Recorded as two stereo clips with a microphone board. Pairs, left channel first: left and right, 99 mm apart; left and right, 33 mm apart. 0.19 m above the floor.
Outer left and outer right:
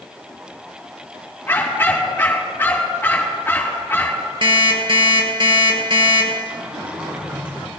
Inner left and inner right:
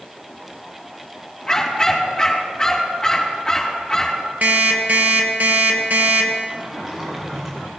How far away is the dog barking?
About 5.5 m.